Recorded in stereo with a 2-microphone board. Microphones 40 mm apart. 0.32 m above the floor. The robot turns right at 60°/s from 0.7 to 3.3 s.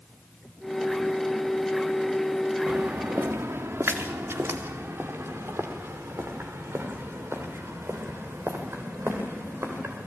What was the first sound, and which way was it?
Footsteps, 65° right (ahead or behind).